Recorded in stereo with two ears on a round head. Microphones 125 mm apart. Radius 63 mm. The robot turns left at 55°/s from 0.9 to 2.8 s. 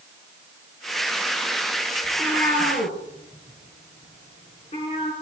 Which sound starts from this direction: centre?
A cat meowing, at 2.0 s.